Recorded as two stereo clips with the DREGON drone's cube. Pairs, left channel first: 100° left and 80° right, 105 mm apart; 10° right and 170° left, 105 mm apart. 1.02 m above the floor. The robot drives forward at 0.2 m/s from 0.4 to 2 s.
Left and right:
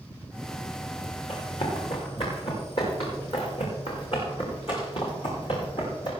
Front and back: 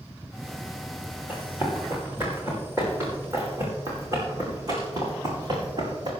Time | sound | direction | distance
1.3 | running footsteps | 100° left | 5.5 m